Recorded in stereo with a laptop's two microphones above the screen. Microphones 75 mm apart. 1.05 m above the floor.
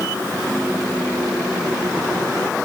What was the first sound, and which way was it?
Only background noise.